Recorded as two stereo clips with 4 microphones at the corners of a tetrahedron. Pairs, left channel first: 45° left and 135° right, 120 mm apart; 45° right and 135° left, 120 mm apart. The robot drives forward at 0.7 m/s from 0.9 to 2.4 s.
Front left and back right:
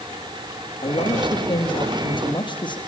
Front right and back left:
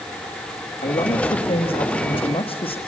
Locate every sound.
0.8 s a man speaking: 5° right, 5 m